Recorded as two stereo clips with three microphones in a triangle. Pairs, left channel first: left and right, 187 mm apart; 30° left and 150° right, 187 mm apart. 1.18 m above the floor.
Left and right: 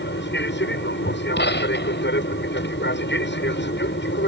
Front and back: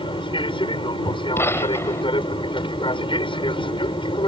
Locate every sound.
0.0 s an aircraft: 90° left
1.4 s a gunshot: 105° left